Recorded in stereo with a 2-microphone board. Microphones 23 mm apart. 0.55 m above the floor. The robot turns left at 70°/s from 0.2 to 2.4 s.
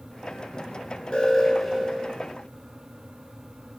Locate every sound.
1.1 s an alarm: 35° left, 9.5 m; by 2.1 s 35° right, 9.5 m